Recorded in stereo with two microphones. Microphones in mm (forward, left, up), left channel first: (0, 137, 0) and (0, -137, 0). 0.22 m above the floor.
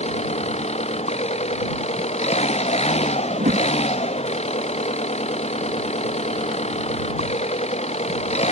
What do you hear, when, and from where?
0.0 s an engine running: 25° left (ahead or behind)
3.3 s a whoosh: 30° right (ahead or behind)